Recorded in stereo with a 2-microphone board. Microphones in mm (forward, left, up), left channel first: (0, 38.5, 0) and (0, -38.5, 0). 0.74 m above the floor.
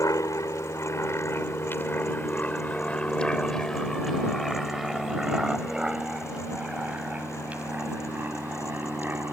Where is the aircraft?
45° left (ahead or behind); by 9.3 s 25° right (ahead or behind).